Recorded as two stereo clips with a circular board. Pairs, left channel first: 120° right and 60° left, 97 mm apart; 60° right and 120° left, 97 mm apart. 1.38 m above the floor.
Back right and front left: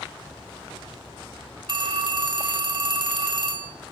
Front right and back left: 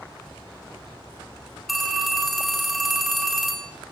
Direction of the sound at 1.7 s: 30° left.